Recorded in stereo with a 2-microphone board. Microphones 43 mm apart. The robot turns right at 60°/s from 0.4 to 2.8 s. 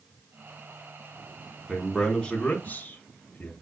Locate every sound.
1.7 s a man speaking: 5° right (ahead or behind), 1.5 m; by 3.5 s 40° left (ahead or behind), 1.5 m